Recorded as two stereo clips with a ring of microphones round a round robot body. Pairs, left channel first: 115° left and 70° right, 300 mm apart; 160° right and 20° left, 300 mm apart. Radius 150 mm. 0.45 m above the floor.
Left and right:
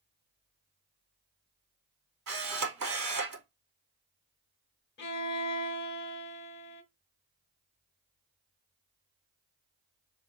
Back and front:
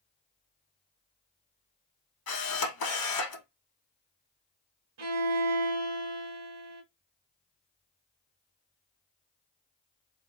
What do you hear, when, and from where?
2.3 s a camera shutter: 115° right, 2.5 m
5.0 s a violin: 60° left, 1.1 m